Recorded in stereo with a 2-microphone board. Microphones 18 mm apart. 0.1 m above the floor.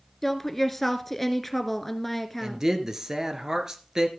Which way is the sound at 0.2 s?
10° left (ahead or behind).